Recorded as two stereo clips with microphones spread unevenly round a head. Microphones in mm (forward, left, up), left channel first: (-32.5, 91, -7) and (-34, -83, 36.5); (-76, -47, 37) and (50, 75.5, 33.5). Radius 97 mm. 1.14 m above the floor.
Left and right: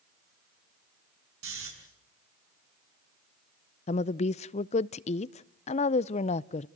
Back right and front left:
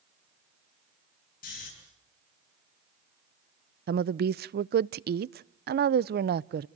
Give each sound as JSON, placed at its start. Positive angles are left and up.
{"t": 1.4, "sound": "snoring", "azimuth_deg": -90, "distance_m": 7.5}
{"t": 3.9, "sound": "a woman speaking", "azimuth_deg": 55, "distance_m": 0.5}